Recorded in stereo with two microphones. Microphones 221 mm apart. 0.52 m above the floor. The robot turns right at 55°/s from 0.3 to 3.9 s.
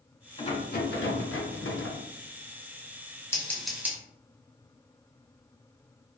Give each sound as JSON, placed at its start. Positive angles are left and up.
{"t": 0.4, "sound": "a rattle", "azimuth_deg": 30, "distance_m": 0.6}
{"t": 3.3, "sound": "scissors", "side_deg": 15, "distance_m": 0.9}